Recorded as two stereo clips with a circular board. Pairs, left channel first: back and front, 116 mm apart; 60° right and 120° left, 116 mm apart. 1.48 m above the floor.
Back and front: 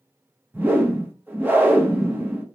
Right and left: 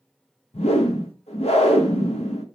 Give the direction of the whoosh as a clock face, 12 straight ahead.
2 o'clock.